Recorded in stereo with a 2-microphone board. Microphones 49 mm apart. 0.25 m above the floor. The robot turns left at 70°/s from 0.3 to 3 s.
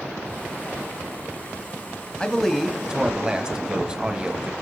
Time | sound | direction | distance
2.2 | a man speaking | 25° left | 1.1 m